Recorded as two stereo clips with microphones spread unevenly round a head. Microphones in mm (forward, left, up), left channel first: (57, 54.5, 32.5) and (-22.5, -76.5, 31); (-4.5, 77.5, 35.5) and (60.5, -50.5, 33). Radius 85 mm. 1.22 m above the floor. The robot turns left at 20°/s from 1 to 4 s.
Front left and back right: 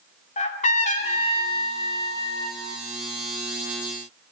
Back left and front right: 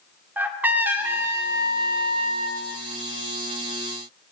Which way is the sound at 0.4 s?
15° left.